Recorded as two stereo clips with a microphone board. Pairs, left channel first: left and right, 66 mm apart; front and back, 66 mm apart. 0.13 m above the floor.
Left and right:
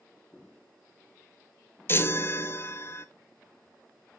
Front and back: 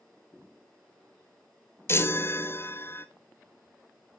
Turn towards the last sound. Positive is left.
turn(degrees=40)